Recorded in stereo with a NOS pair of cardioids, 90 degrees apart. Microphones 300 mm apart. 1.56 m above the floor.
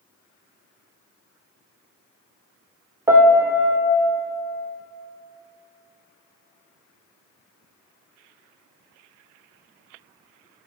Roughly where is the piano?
Ahead.